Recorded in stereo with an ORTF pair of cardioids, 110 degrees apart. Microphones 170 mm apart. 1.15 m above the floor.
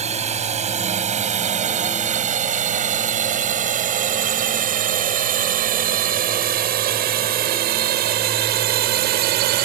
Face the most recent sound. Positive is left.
turn(degrees=-80)